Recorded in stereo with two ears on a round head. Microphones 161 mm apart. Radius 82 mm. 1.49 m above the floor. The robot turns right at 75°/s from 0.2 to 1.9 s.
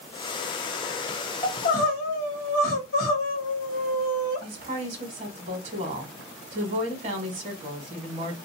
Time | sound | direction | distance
1.4 | crying | 25° left | 1.0 m
4.4 | a woman speaking | 45° right (ahead or behind) | 1.0 m